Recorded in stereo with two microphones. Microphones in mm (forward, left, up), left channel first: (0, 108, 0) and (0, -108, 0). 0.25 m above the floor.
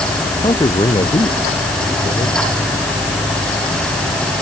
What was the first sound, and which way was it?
A man speaking, 25° left (ahead or behind).